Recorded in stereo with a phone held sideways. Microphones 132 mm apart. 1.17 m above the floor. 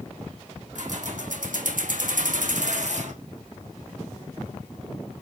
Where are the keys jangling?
70° right (ahead or behind), 1.8 m; by 3.1 s 65° right (ahead or behind), 1.7 m.